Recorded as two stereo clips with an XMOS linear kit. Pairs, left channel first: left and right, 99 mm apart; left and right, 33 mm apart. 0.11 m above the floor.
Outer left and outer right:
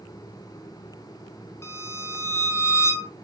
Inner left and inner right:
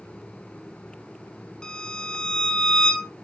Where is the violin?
25° left (ahead or behind), 1.0 m.